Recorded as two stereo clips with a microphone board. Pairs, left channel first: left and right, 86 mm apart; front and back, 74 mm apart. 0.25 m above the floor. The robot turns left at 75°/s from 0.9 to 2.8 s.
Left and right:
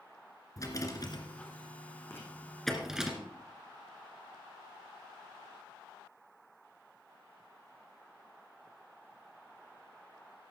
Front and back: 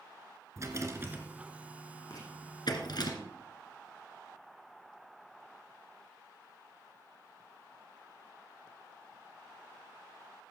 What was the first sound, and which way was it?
A rattle, 135° left.